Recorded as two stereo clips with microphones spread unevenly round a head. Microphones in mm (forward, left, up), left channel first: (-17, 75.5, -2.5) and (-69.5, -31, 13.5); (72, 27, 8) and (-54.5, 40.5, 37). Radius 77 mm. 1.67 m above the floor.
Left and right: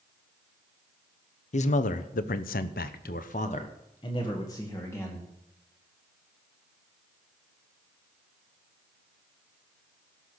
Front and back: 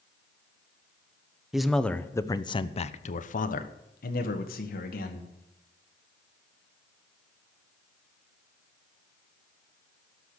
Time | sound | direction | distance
1.5 | a man speaking | 90° left | 1.1 m